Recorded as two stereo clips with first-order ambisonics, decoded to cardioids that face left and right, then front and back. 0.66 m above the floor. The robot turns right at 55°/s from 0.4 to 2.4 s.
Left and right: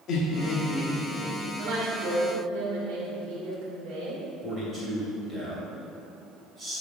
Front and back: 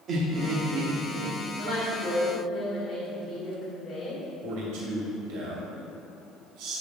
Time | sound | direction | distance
0.1 | laughter | 130° left | 0.9 m
1.6 | a woman speaking | 130° right | 2.5 m
4.4 | a man speaking | 165° right | 2.5 m